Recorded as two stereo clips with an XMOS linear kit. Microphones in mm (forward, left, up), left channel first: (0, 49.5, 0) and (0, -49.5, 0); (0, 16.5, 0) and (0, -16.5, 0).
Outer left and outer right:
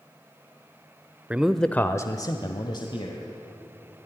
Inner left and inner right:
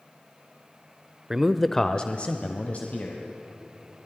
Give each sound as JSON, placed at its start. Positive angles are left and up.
{"t": 1.3, "sound": "a man speaking", "side_deg": -15, "distance_m": 0.9}